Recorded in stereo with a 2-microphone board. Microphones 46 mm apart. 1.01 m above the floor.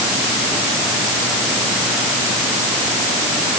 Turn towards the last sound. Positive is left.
No sound to turn to.